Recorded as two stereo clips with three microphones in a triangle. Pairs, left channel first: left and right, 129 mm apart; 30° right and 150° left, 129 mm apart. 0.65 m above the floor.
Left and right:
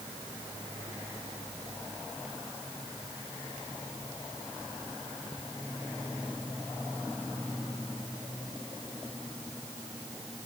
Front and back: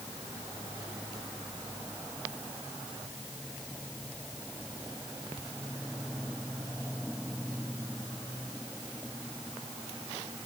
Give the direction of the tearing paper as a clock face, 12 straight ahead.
I don't hear tearing paper.